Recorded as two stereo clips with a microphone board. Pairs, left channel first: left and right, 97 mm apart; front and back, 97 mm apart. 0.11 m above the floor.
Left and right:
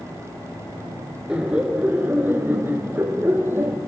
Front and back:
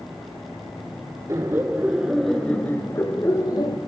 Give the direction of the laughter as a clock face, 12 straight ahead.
5 o'clock.